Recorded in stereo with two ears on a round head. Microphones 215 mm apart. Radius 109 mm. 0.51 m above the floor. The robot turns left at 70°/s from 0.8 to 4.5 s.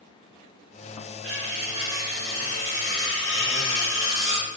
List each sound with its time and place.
1.2 s cutlery clinking: 120° right, 2.5 m; by 4.5 s 15° left, 2.5 m